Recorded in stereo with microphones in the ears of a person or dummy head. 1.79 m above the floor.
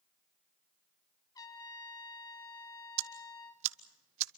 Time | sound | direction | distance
1.4 | a trumpet | 20° left (ahead or behind) | 2.5 m
3.0 | ticking | 35° right (ahead or behind) | 0.9 m